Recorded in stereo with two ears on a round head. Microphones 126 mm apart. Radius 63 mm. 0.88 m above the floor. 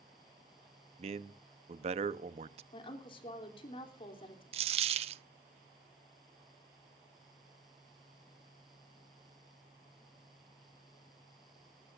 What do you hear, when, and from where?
1.0 s a man speaking: 50° right (ahead or behind), 0.9 m
2.7 s a woman speaking: 40° left (ahead or behind), 3 m
4.5 s a dropped coin: 45° right (ahead or behind), 0.7 m